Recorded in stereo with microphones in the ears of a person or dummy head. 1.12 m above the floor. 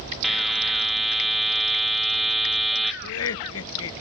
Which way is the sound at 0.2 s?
Centre (ahead or behind).